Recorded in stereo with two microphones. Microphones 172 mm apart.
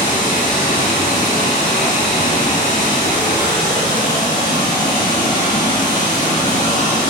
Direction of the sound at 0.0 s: 45° left (ahead or behind).